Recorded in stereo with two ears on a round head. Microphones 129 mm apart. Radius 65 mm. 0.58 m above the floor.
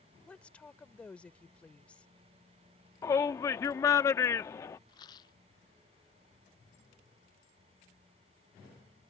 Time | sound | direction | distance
0.3 | a woman speaking | 10° left (ahead or behind) | ?
3.0 | a shout | 20° left (ahead or behind) | ?
4.9 | a rattle | 30° left (ahead or behind) | ?